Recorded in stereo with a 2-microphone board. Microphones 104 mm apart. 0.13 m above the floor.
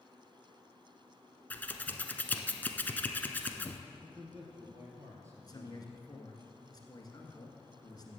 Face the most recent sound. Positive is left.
turn(degrees=40)  # may be behind; listen again after turning